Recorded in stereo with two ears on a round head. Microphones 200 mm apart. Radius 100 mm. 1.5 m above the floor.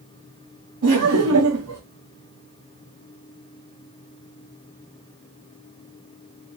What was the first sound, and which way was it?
Laughter, 85° right.